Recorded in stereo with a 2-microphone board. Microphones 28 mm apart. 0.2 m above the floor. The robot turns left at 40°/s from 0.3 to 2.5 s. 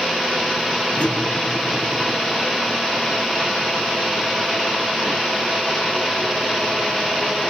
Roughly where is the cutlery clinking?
Ahead left.